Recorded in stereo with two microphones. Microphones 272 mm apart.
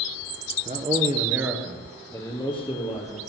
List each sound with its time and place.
0.7 s a man speaking: 30° right (ahead or behind), 2.0 m; by 3.2 s 25° left (ahead or behind), 3.5 m